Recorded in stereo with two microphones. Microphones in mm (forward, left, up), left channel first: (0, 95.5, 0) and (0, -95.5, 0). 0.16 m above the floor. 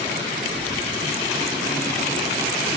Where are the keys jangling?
25° right (ahead or behind), 6 m; by 2.7 s 40° right (ahead or behind), 6.5 m.